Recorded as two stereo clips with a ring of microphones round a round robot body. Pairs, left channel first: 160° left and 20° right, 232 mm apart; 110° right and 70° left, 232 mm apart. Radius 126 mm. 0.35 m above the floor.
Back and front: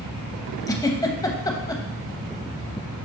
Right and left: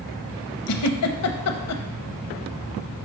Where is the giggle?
125° right, 0.7 m.